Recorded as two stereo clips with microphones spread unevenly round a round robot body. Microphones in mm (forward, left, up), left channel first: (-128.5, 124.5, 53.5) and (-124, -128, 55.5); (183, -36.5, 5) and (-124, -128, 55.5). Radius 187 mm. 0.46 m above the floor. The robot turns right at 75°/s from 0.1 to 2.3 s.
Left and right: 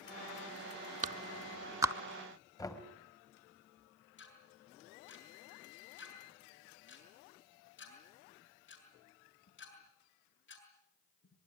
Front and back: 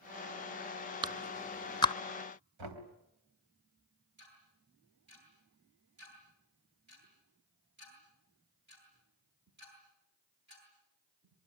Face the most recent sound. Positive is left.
turn(degrees=135)